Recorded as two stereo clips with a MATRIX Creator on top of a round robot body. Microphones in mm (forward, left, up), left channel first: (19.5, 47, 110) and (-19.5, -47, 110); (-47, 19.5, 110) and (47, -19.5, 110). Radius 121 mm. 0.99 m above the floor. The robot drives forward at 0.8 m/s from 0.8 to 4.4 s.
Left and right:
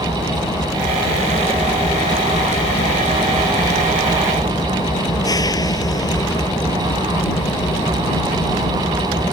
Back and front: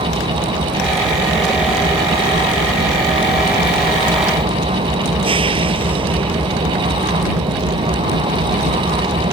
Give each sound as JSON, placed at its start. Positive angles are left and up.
{"t": 0.0, "sound": "an engine running", "azimuth_deg": 10}